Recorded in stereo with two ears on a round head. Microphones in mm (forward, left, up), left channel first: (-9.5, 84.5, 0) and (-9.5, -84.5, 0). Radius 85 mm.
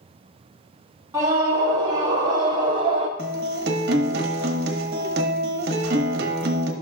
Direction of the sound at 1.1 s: 15° right (ahead or behind).